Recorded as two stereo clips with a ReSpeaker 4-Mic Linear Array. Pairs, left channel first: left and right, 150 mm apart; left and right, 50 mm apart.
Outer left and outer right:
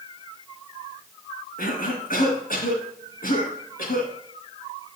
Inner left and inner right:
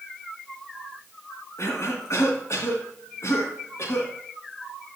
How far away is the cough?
About 3 m.